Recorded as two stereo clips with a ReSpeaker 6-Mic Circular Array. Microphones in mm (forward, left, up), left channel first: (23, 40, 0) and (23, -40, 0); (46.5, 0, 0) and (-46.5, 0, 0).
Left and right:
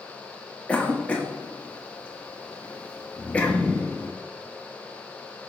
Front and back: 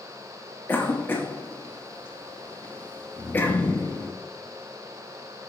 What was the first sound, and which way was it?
A cough, 35° left.